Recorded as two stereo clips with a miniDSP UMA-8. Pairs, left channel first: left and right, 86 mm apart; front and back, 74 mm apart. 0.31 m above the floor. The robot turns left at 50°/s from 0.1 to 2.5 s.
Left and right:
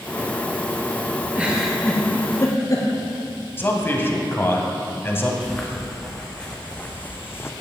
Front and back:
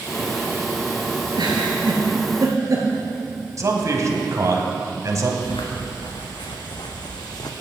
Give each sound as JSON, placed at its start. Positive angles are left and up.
{"t": 1.4, "sound": "a giggle", "azimuth_deg": -160, "distance_m": 2.0}
{"t": 3.6, "sound": "a man speaking", "azimuth_deg": 150, "distance_m": 1.6}
{"t": 5.4, "sound": "footsteps", "azimuth_deg": 5, "distance_m": 2.0}